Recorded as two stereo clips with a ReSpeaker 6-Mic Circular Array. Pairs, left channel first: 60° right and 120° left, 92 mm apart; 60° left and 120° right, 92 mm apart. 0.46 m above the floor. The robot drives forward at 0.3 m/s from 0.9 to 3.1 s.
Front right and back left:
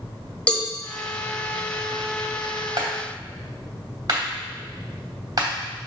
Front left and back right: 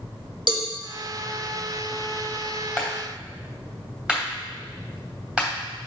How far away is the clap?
About 2.5 m.